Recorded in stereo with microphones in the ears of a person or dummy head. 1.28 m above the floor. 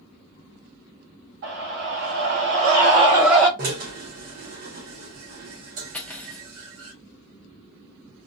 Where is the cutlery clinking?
5° left (ahead or behind), 0.7 m.